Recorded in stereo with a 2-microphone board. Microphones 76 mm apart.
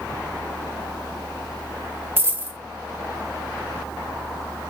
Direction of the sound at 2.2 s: 30° right (ahead or behind).